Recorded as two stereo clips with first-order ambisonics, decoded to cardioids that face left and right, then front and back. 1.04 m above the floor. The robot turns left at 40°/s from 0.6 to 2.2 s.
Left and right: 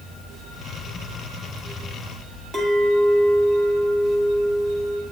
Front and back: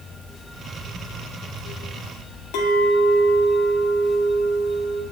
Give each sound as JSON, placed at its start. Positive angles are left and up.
{"t": 2.5, "sound": "a clink", "azimuth_deg": -20, "distance_m": 1.5}